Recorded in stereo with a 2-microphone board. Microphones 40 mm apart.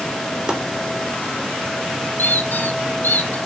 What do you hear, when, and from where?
0.5 s chopping: 20° right (ahead or behind), 3.5 m
2.2 s a squeak: 50° left (ahead or behind), 1.5 m